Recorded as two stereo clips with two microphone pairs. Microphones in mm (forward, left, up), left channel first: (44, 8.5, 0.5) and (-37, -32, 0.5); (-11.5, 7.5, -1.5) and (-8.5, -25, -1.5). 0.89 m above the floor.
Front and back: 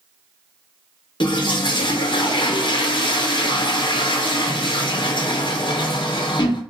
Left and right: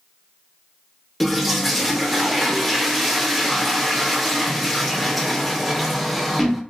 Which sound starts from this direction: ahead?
A toilet flushing, at 1.2 s.